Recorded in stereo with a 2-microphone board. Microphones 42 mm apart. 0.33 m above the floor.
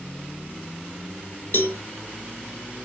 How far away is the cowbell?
About 0.8 m.